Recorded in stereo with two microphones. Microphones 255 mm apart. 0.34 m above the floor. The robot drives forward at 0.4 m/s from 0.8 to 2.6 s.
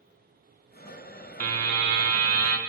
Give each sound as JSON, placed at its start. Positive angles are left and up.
{"t": 1.4, "sound": "a buzzer", "side_deg": -65, "distance_m": 0.5}